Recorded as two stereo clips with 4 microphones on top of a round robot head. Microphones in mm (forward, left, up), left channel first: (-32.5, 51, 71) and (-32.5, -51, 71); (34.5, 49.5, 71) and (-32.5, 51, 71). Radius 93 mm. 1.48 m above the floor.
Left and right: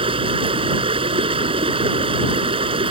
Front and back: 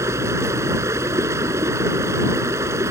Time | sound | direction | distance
0.0 | running water | 125° right | ?